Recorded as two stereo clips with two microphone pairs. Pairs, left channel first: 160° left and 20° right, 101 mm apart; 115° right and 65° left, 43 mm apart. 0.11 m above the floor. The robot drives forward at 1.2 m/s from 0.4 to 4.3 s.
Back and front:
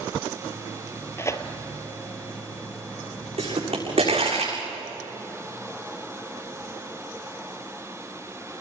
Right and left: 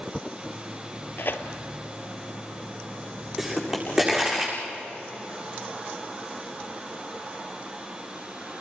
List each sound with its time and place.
1.2 s tearing paper: 135° right, 1.4 m; by 1.4 s 145° right, 1.6 m
3.4 s a pop: 15° right, 8.5 m